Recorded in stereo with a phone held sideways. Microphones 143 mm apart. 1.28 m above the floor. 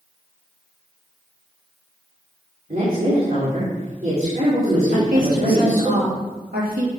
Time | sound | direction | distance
2.7 | a woman speaking | 70° right (ahead or behind) | 4 m
4.9 | a woman speaking | 75° right (ahead or behind) | 3 m